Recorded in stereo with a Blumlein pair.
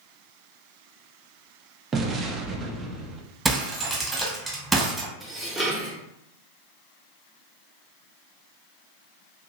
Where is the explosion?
20° right, 0.7 m.